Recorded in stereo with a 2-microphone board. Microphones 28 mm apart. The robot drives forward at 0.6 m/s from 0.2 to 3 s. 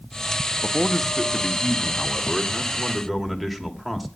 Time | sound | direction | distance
0.6 | a man speaking | 5° left (ahead or behind) | 0.6 m